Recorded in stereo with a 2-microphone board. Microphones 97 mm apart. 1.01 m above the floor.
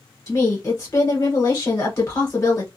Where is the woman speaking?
30° left (ahead or behind), 1.2 m.